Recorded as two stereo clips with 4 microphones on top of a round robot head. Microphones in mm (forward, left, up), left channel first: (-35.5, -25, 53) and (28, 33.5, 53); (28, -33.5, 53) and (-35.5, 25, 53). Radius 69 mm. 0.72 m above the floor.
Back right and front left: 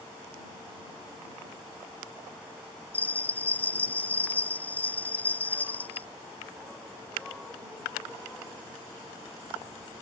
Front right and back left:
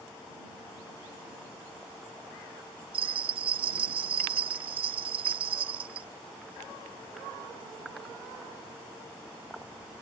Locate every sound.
2.9 s a bell: 155° left